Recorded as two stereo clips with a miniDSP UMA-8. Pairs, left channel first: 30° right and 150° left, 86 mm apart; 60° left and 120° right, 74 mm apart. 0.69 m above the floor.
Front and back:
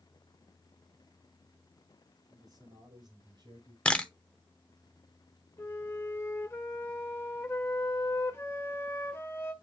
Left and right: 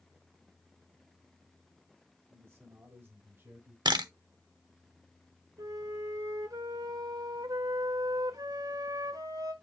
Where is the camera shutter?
105° right, 0.8 m.